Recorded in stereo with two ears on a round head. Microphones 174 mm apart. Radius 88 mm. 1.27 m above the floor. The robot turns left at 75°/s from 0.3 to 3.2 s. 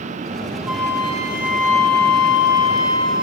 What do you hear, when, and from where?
0.7 s a flute: 175° right, 1.9 m; by 3.2 s 5° right, 1.9 m